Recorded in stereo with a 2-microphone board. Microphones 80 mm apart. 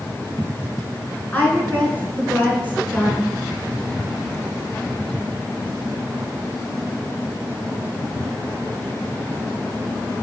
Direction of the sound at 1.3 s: 20° left (ahead or behind).